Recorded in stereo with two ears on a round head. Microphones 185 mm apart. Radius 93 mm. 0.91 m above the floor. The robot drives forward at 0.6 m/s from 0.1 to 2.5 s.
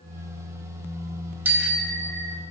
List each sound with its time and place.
1.4 s a bicycle bell: 10° right (ahead or behind), 2.5 m